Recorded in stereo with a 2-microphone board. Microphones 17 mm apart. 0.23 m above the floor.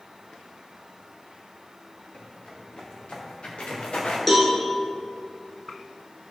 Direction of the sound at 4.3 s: 10° left (ahead or behind).